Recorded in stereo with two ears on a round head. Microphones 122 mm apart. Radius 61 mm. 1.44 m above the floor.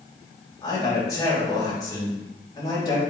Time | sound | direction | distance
0.6 | a man speaking | 30° left (ahead or behind) | 3 m